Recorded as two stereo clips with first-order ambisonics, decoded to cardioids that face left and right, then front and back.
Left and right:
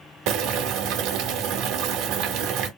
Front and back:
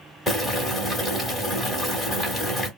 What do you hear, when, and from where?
0.3 s boiling: 90° right, 1.4 m